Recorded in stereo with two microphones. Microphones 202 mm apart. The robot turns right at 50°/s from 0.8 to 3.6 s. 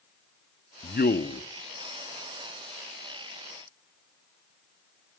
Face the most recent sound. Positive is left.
turn(degrees=-145)